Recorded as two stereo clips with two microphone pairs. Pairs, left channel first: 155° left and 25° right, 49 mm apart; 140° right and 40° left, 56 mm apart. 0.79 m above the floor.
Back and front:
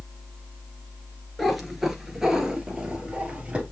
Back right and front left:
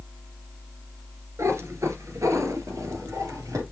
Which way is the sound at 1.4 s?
65° left.